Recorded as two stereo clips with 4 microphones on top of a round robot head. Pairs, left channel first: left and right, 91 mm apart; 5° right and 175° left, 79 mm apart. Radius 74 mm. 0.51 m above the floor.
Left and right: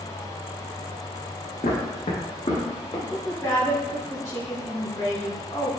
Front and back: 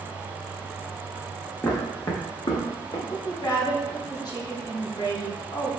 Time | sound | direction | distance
1.6 | footsteps | 60° left | 2.5 m
3.1 | a woman speaking | 30° left | 3 m